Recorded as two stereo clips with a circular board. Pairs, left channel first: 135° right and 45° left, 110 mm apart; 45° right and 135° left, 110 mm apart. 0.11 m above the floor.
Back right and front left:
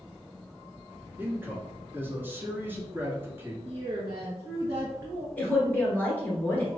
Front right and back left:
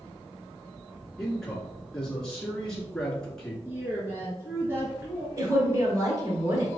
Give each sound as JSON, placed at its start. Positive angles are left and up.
{"t": 1.2, "sound": "a man speaking", "azimuth_deg": 30, "distance_m": 1.4}
{"t": 3.6, "sound": "a woman speaking", "azimuth_deg": 80, "distance_m": 1.3}
{"t": 5.4, "sound": "a woman speaking", "azimuth_deg": 160, "distance_m": 1.4}